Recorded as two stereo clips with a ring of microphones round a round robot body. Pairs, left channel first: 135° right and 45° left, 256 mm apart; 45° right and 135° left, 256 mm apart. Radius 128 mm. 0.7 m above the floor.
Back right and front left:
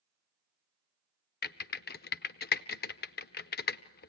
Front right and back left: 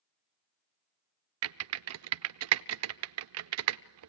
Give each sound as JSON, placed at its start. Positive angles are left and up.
{"t": 1.4, "sound": "typing on a keyboard", "azimuth_deg": 170, "distance_m": 0.5}